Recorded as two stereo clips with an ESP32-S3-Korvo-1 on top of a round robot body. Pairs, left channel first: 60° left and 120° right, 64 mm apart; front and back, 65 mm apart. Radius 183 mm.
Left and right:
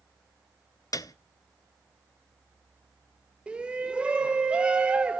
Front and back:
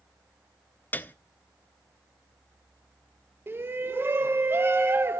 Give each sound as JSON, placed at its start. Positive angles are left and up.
{"t": 0.9, "sound": "a piano", "azimuth_deg": 55, "distance_m": 0.8}
{"t": 3.5, "sound": "a shout", "azimuth_deg": 180, "distance_m": 1.2}